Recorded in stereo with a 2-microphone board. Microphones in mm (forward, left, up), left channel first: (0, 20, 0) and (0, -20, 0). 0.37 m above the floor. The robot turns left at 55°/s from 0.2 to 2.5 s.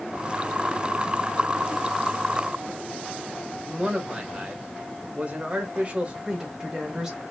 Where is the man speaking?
35° right (ahead or behind), 0.9 m.